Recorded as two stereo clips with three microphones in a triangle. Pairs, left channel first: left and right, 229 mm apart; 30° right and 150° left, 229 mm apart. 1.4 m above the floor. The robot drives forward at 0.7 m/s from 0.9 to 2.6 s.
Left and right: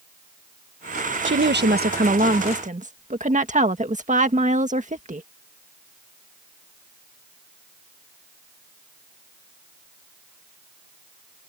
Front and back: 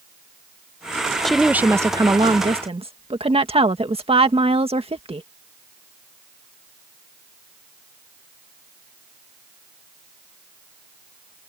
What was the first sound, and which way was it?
A woman speaking, 120° right.